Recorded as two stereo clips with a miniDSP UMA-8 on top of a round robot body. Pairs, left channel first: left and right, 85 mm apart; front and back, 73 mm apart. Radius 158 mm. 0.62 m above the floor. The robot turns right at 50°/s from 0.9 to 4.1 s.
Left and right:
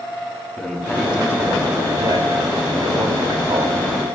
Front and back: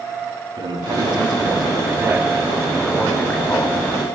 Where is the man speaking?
175° right, 7 m; by 4.2 s 15° right, 7 m.